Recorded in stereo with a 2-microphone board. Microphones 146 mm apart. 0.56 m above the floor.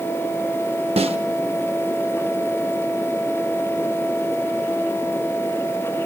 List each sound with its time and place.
1.0 s a snare drum: 45° right (ahead or behind), 0.5 m